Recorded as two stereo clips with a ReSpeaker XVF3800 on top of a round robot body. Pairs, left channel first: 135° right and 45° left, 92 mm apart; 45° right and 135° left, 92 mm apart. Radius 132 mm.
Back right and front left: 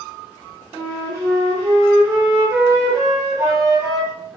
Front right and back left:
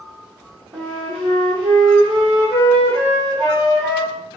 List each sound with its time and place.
0.7 s a flute: 105° left, 0.8 m